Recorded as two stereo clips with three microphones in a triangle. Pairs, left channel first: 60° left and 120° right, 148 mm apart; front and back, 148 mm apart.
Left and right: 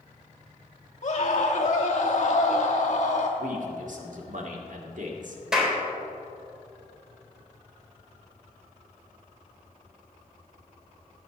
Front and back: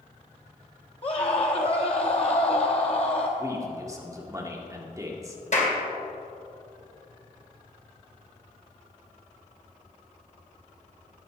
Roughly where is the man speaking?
Behind right.